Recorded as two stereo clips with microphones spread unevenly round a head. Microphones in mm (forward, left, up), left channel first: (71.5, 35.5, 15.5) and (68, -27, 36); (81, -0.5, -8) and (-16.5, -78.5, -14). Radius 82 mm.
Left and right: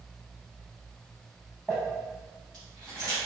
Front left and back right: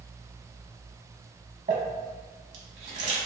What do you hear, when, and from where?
1.7 s crumpling: 175° right, 0.8 m